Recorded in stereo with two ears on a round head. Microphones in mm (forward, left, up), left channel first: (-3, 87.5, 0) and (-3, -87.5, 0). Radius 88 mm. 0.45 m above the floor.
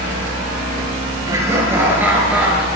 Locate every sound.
1.3 s laughter: 15° right (ahead or behind), 6 m; by 2.6 s 5° right (ahead or behind), 6 m